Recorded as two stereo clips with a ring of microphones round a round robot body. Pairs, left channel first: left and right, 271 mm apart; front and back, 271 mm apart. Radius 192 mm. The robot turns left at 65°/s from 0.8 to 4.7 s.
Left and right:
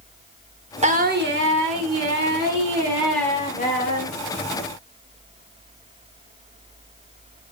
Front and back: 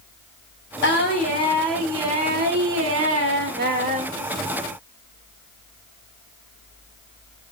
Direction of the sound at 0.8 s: 30° right.